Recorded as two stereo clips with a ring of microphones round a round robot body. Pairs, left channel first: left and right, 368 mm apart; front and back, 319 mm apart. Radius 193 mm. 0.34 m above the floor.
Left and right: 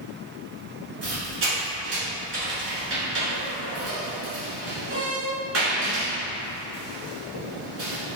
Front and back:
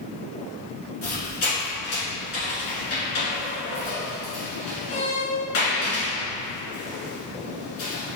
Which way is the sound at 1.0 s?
30° right.